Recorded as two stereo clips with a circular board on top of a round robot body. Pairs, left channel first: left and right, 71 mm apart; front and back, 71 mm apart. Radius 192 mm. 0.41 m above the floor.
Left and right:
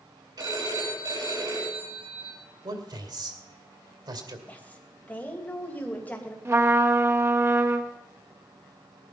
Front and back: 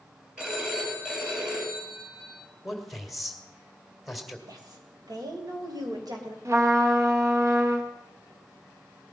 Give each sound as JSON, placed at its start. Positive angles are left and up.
{"t": 0.4, "sound": "a phone ringing", "azimuth_deg": -105, "distance_m": 7.0}
{"t": 2.6, "sound": "a man speaking", "azimuth_deg": -90, "distance_m": 2.5}
{"t": 4.5, "sound": "a woman speaking", "azimuth_deg": 155, "distance_m": 3.0}
{"t": 6.5, "sound": "a trumpet", "azimuth_deg": -140, "distance_m": 1.5}